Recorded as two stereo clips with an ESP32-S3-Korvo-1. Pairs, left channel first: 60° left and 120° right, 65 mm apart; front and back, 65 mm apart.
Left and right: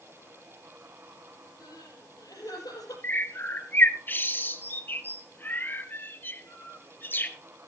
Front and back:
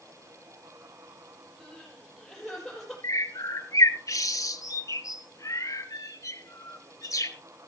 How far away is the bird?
About 1.4 m.